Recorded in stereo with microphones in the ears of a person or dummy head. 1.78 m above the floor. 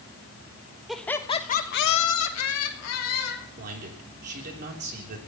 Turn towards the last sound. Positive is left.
turn(degrees=-50)  # may be behind; listen again after turning